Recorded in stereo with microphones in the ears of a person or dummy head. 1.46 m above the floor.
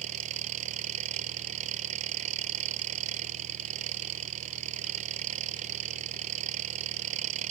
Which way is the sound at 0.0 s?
40° right (ahead or behind).